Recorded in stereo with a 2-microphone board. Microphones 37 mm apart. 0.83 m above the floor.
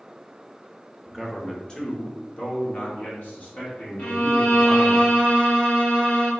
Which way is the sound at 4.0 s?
60° left (ahead or behind).